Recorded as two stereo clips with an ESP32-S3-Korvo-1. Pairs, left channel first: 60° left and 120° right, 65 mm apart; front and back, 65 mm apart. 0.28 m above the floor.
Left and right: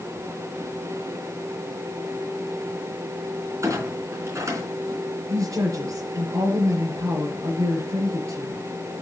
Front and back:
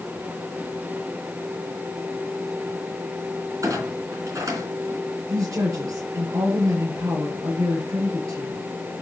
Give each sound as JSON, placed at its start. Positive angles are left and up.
{"t": 3.6, "sound": "a clunk", "azimuth_deg": -155, "distance_m": 3.5}
{"t": 5.3, "sound": "a woman speaking", "azimuth_deg": -155, "distance_m": 5.5}